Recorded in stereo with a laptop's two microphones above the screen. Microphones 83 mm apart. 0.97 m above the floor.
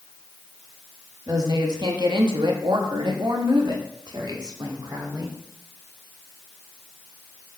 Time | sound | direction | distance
1.3 | a woman speaking | 45° right (ahead or behind) | 1.8 m